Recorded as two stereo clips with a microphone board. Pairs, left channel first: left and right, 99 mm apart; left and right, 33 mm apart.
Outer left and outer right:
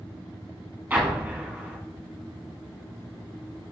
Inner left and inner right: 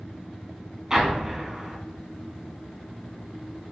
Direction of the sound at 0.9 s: 15° right (ahead or behind).